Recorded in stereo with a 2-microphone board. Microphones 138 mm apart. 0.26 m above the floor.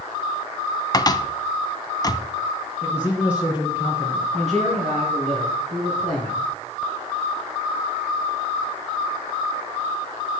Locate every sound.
0.9 s a cupboard door: 30° left (ahead or behind), 0.7 m
2.8 s a man speaking: 10° right (ahead or behind), 3 m
4.3 s a man speaking: 60° right (ahead or behind), 5.5 m